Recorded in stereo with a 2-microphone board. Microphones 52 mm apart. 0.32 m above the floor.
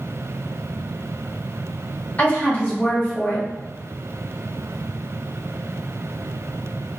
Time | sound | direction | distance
2.2 | a woman speaking | 30° left (ahead or behind) | 1.5 m